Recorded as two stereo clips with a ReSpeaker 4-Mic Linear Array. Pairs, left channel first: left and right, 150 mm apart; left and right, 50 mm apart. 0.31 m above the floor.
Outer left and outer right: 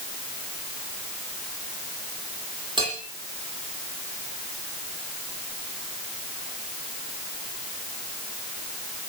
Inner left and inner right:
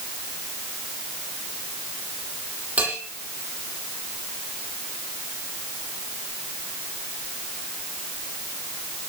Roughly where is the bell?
Right.